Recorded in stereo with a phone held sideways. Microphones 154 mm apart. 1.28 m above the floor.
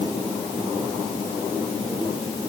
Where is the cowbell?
I don't hear a cowbell.